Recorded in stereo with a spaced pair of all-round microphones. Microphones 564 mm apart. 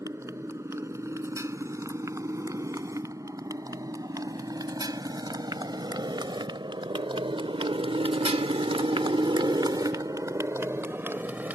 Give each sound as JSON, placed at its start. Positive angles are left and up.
{"t": 0.0, "sound": "a motorcycle", "side_deg": -5}